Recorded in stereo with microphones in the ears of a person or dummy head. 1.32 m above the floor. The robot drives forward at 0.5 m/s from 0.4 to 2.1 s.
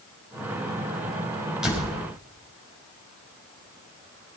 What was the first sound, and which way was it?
A door slam, centre (ahead or behind).